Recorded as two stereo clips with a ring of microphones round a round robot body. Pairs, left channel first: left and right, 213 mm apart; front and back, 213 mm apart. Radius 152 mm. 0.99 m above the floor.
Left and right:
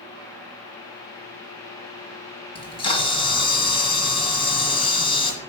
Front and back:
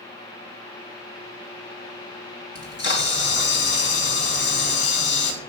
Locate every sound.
2.5 s a camera shutter: 25° left, 1.8 m